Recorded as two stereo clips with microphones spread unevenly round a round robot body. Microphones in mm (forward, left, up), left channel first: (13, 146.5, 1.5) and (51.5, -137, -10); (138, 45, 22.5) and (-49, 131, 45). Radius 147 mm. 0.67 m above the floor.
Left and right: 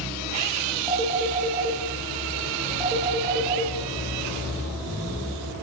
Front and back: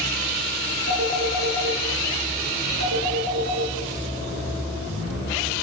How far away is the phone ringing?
About 7 m.